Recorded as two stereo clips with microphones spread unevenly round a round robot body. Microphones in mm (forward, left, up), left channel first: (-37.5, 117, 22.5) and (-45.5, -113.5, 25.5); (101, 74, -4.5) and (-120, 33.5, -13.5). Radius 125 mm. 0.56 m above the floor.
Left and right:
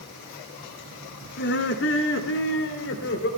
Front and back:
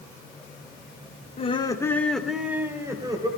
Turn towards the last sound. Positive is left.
turn(degrees=120)